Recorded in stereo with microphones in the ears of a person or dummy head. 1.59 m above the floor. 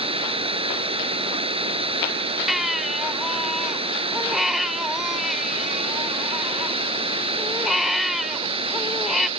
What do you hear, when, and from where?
0.0 s running water: 25° right (ahead or behind)
2.5 s a baby crying: 5° right (ahead or behind)